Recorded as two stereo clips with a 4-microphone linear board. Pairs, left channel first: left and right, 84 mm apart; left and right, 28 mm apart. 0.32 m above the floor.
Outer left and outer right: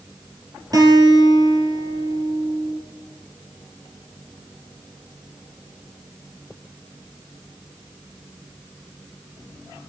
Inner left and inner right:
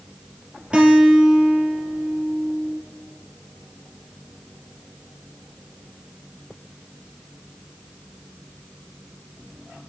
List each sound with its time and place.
0.7 s a guitar: 50° right (ahead or behind), 2.5 m